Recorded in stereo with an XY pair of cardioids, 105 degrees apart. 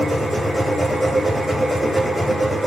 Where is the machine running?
5° left, 0.9 m.